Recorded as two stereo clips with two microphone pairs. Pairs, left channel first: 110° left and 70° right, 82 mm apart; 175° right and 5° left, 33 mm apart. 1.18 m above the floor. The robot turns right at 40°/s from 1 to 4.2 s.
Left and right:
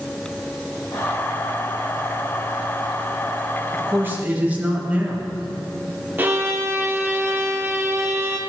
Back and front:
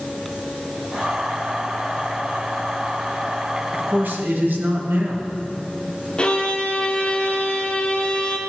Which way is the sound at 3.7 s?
20° right.